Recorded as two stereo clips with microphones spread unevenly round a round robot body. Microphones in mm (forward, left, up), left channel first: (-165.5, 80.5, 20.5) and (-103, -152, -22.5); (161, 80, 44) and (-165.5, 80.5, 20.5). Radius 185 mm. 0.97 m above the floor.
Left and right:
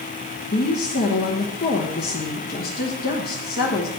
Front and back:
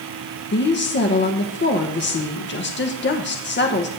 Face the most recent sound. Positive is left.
turn(degrees=50)